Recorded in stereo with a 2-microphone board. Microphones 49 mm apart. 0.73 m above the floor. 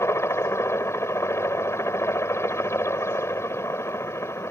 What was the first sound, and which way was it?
A helicopter, 65° left (ahead or behind).